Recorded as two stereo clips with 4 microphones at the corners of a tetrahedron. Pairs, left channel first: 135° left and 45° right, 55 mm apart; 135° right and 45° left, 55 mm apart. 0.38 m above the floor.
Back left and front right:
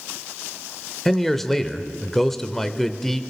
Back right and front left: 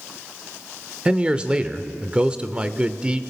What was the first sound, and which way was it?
A man speaking, 65° left.